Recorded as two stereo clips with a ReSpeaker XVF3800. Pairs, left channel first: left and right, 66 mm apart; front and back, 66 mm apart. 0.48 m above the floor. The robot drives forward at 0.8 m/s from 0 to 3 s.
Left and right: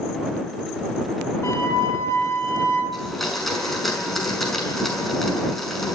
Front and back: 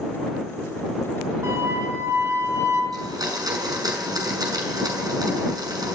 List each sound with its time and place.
1.4 s a flute: 140° left, 6 m; by 2.8 s 145° left, 7 m
2.9 s a blender: straight behind, 5.5 m